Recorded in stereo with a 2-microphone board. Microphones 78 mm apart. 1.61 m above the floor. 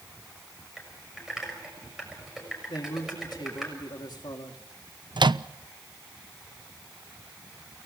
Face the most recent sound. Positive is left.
turn(degrees=-70)  # may be behind; listen again after turning